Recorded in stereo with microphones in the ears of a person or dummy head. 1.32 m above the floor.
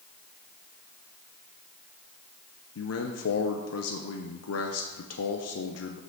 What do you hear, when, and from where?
2.8 s a man speaking: 70° left (ahead or behind), 0.6 m